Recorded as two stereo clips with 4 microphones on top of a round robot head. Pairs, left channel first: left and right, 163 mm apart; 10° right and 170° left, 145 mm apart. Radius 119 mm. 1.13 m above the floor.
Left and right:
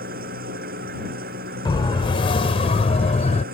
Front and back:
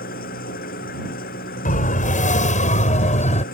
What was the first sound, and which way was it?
An engine running, 45° right.